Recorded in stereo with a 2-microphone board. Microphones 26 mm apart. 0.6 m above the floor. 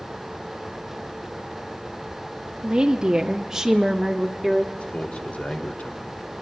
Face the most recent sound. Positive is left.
turn(degrees=55)  # may be behind; listen again after turning